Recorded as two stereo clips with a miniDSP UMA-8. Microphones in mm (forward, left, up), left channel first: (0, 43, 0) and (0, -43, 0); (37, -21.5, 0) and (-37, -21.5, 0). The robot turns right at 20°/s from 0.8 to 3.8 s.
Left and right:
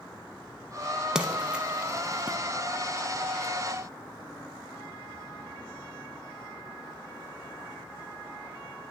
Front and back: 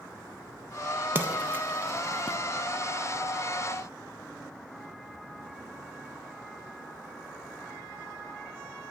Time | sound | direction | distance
1.1 | a splash | 165° right | 0.5 m